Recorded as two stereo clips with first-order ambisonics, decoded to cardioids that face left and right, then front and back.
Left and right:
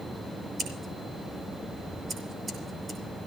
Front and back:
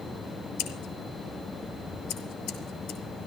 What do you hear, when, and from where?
0.6 s scissors: 20° right, 5.5 m